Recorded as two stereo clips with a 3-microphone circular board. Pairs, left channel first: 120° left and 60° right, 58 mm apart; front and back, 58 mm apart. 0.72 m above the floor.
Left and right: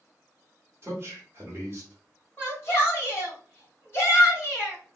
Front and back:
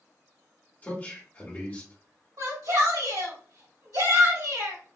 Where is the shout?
175° left, 1.6 m.